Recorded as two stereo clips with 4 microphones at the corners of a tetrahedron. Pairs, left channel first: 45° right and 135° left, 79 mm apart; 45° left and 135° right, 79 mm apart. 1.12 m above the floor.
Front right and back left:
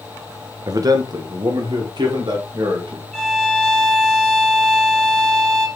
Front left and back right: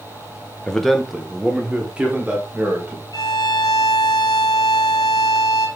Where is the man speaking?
125° left, 0.6 m; by 3.0 s 155° left, 1.8 m.